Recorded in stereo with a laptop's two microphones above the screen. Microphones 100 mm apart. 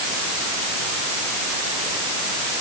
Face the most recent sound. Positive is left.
No sound to turn to.